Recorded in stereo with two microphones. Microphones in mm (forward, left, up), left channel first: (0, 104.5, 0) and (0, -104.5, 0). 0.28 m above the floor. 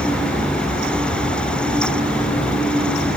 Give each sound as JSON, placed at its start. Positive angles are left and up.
{"t": 1.1, "sound": "ticking", "side_deg": 70, "distance_m": 1.0}